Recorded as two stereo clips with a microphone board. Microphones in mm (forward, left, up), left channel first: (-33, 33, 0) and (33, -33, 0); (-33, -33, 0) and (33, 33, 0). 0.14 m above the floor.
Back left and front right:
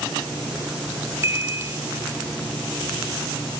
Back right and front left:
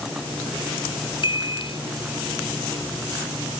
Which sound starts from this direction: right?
A chime, at 1.2 s.